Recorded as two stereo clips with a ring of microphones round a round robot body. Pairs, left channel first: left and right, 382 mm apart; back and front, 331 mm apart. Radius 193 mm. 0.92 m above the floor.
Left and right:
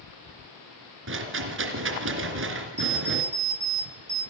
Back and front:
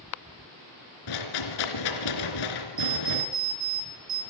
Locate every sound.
1.1 s a rattle: 150° right, 3 m
2.8 s an alarm clock: 45° right, 3.5 m